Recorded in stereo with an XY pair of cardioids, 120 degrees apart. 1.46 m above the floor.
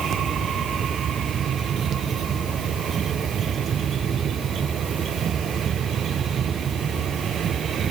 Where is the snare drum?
I don't hear a snare drum.